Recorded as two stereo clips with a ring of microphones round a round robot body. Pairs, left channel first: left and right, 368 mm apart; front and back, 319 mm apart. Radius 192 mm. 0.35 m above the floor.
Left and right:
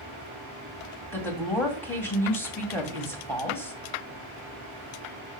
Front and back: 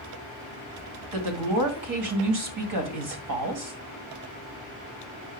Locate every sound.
1.1 s a woman speaking: 175° left, 2 m